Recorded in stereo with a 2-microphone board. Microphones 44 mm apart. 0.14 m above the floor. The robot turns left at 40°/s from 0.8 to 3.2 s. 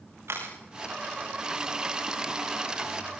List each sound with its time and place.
0.3 s a camera shutter: 80° right, 5 m